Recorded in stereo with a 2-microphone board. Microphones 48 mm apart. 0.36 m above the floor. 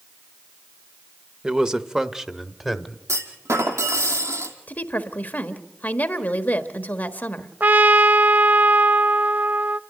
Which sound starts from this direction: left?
A woman speaking, at 4.7 s.